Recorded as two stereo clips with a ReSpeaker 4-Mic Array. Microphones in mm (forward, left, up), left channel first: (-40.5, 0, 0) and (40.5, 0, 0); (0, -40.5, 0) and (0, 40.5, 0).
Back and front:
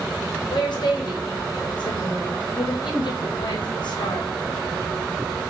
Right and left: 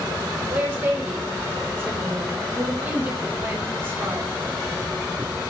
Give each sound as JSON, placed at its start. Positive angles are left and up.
{"t": 0.5, "sound": "a woman speaking", "azimuth_deg": 155, "distance_m": 0.8}